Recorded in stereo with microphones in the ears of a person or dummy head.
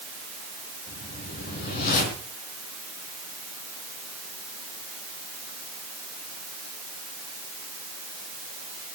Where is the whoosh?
50° left (ahead or behind), 3.5 m.